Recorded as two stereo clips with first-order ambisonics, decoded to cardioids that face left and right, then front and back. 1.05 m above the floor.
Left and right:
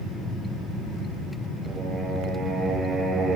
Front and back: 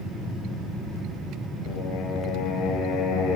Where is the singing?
25° right, 6.5 m.